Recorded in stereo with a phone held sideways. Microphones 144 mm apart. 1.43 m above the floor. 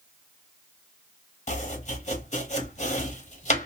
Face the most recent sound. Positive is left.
turn(degrees=50)  # may be behind; listen again after turning